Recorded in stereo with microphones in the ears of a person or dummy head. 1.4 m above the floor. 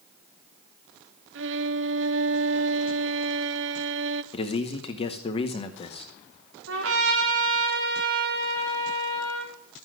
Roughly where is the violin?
Right.